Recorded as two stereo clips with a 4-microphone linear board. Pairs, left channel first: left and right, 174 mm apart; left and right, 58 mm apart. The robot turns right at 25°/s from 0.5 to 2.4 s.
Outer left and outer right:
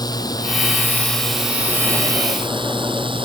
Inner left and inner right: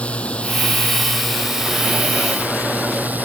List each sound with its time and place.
0.0 s a drone: 20° left (ahead or behind); by 3.2 s 30° right (ahead or behind)